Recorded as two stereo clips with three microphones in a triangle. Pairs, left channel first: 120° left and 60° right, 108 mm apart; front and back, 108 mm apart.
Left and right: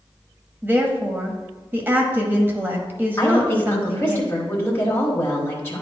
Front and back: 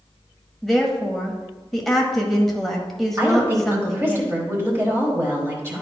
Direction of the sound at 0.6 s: 80° right.